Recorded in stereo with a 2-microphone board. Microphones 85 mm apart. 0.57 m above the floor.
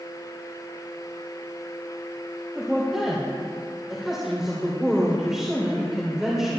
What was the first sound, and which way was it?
A woman speaking, 5° right (ahead or behind).